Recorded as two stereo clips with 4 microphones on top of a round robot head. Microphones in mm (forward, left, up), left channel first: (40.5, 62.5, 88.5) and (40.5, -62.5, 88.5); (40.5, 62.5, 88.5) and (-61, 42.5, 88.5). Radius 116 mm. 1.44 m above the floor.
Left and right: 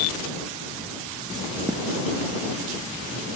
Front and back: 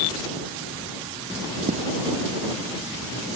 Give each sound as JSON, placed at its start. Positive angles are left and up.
{"t": 1.7, "sound": "footsteps", "azimuth_deg": 180}